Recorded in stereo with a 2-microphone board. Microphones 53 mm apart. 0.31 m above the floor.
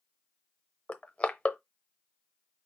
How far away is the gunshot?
I don't hear a gunshot.